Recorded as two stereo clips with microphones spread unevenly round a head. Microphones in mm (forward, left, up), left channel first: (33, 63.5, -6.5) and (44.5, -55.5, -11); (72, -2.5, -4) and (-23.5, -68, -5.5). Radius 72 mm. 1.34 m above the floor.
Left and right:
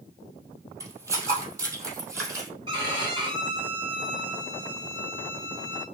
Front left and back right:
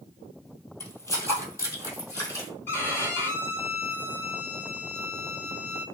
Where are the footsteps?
25° right, 2 m.